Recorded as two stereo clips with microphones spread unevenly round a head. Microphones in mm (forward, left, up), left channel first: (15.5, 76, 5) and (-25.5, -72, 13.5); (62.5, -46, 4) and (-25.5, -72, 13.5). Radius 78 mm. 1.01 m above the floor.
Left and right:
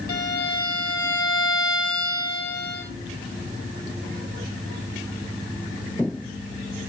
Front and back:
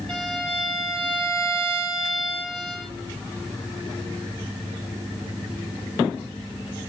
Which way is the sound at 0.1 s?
105° left.